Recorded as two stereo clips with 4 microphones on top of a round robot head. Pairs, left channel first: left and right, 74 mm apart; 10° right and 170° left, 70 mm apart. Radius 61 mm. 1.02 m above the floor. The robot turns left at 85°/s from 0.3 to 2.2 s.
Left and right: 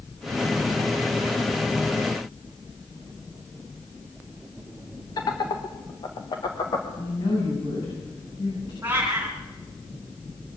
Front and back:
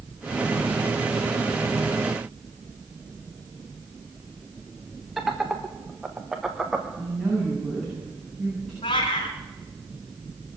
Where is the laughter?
85° left, 1.4 m.